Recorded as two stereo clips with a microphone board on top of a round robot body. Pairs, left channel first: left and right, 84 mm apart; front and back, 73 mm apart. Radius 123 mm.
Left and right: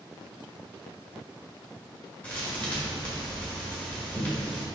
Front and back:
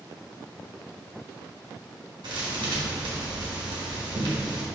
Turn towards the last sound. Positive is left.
turn(degrees=165)